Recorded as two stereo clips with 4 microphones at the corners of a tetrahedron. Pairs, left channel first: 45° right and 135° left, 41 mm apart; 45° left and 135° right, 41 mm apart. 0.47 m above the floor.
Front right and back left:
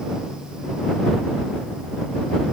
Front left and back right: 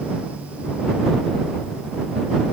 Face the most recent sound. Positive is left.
No sound to turn to.